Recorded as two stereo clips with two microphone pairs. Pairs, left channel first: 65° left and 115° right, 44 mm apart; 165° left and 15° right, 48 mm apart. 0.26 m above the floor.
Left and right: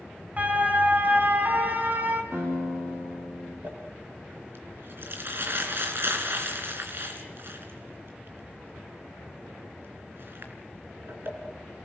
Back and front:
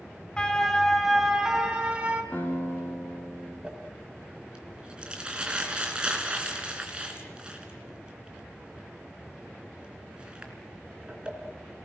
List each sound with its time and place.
0.4 s a siren: 135° right, 2 m; by 2.2 s 70° right, 3 m
2.3 s a guitar: 135° right, 10 m
3.6 s crumpling: 85° right, 3.5 m